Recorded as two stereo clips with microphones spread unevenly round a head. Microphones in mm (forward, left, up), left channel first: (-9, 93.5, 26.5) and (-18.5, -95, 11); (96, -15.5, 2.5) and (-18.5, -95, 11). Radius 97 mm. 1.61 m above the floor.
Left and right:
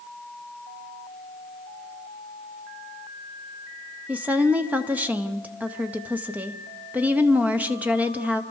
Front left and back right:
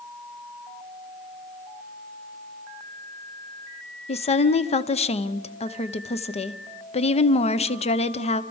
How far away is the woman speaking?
About 1.0 m.